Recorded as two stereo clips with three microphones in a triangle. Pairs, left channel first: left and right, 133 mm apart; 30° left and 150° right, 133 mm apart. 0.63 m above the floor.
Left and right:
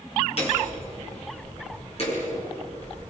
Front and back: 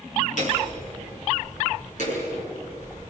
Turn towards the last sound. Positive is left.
turn(degrees=50)